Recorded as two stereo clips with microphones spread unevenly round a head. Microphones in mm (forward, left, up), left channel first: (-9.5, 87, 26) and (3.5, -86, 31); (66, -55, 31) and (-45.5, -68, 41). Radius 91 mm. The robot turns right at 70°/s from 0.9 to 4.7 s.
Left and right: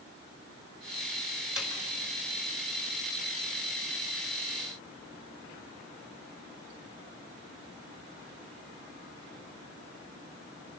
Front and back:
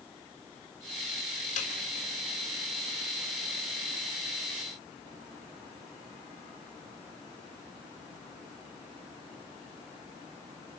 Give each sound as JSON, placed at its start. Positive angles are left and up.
{"t": 1.6, "sound": "a snare drum", "azimuth_deg": 0, "distance_m": 3.5}